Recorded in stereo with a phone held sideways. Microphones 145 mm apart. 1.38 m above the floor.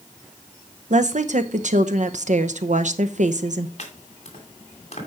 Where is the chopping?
50° left (ahead or behind), 2.5 m.